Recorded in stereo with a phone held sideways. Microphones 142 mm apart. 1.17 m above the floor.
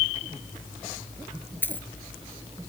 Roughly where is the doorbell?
I don't hear a doorbell.